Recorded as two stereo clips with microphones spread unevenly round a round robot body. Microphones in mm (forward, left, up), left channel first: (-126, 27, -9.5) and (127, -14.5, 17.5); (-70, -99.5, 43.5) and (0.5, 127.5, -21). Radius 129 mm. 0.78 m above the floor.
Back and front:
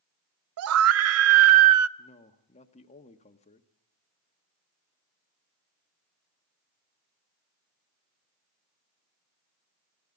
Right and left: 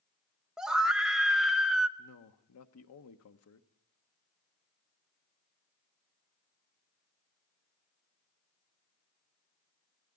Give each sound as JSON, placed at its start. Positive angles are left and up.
{"t": 0.6, "sound": "a scream", "azimuth_deg": 0, "distance_m": 0.6}
{"t": 2.0, "sound": "a man speaking", "azimuth_deg": -130, "distance_m": 1.2}